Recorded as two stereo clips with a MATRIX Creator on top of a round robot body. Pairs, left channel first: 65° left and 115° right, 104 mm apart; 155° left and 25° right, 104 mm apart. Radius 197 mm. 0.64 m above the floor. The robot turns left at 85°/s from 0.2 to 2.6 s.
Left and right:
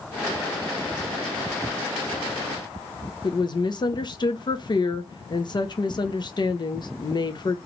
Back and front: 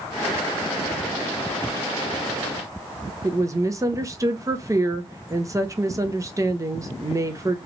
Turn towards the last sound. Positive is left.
turn(degrees=30)